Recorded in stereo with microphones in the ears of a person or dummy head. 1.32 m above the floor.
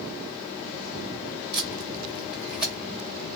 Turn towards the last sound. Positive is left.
turn(degrees=15)  # may be behind; listen again after turning